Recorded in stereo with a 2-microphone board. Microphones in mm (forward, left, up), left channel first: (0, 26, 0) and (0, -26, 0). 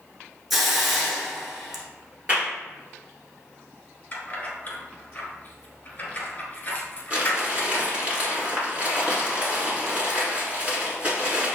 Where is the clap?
25° right (ahead or behind), 1.5 m.